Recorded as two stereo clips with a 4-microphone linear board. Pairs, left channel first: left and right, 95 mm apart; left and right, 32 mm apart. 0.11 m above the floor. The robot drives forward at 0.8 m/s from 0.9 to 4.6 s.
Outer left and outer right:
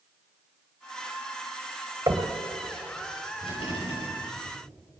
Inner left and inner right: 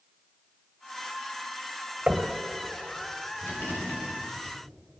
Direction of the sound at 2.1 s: 40° right (ahead or behind).